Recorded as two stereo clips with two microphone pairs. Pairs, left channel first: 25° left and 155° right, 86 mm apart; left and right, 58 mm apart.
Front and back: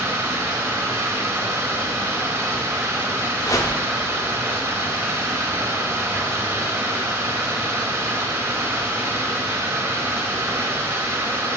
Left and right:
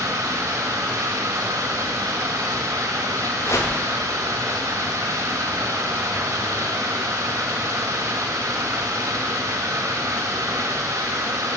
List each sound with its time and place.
0.0 s running water: 95° right, 0.9 m
3.4 s a whoosh: 70° left, 0.7 m